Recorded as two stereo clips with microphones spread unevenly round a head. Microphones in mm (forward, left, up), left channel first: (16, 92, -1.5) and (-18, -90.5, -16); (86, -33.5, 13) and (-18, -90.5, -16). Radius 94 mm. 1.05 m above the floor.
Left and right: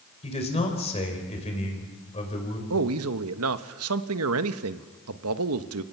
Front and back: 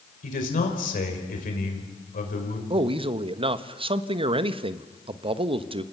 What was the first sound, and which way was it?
A man speaking, 20° left.